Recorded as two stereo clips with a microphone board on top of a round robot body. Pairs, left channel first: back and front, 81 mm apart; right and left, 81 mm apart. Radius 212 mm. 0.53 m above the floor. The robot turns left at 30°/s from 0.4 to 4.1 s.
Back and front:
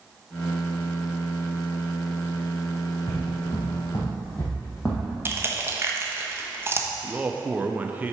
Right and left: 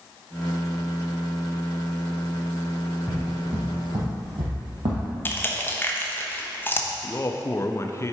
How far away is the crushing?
About 1.2 m.